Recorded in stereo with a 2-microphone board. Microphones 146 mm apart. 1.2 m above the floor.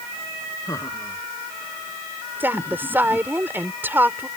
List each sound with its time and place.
0.7 s laughter: 20° left (ahead or behind)
2.4 s a woman speaking: 15° right (ahead or behind)